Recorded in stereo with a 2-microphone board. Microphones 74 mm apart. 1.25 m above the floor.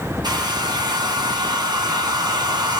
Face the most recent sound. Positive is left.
turn(degrees=-75)  # may be behind; listen again after turning